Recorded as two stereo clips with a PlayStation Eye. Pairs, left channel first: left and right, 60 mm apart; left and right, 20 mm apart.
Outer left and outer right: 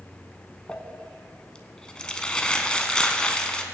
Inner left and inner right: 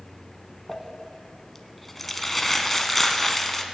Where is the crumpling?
15° left (ahead or behind), 0.9 m.